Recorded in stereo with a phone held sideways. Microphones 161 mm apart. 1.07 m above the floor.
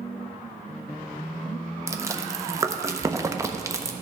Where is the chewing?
20° right (ahead or behind), 0.5 m.